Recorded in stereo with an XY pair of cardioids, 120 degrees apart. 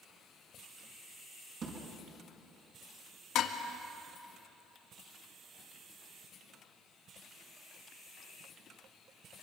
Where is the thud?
50° right, 6.5 m.